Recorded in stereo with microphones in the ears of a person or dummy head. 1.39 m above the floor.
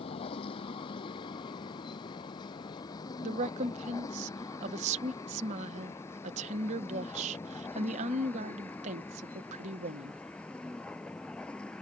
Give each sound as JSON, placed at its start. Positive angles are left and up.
{"t": 0.0, "sound": "a vehicle", "side_deg": 35}
{"t": 3.2, "sound": "a woman speaking", "side_deg": -30}